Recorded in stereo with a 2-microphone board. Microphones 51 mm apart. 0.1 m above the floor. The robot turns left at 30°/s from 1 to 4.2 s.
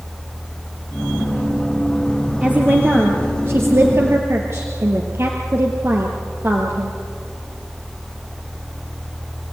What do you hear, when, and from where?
2.4 s a woman speaking: 30° right, 1.9 m; by 7.0 s 85° right, 1.9 m